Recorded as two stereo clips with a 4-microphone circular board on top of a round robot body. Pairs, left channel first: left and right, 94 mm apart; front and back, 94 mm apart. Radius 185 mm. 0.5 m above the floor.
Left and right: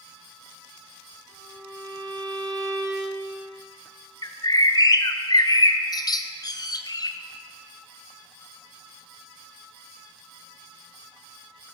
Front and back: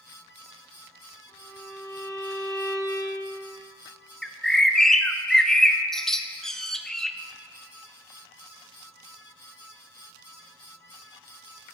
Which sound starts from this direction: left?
A bird, at 4.2 s.